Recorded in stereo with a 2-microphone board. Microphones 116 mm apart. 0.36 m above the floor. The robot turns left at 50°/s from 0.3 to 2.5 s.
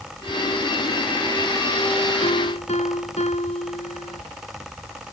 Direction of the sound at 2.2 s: 75° left (ahead or behind).